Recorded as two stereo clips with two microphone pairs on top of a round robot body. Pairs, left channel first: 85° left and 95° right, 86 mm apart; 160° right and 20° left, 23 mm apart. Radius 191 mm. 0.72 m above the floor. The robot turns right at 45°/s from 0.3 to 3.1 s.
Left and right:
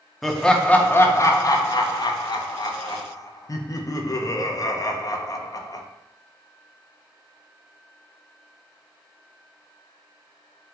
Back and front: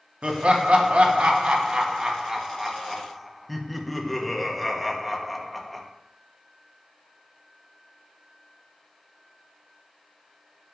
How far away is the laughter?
About 0.6 m.